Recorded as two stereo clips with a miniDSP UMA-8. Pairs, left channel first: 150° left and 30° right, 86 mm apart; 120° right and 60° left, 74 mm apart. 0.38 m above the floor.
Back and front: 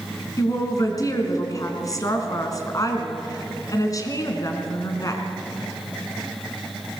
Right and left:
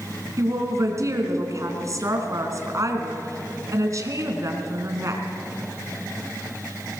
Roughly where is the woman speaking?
Left.